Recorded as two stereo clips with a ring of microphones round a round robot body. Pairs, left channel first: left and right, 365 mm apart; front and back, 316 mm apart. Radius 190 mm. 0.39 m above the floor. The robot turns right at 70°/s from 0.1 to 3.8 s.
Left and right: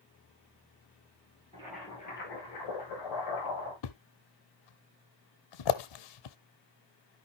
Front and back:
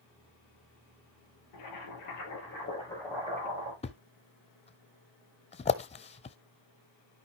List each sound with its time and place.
1.5 s boiling: 15° right, 8.5 m; by 3.7 s 140° left, 8.5 m
3.8 s a thud: 70° left, 0.7 m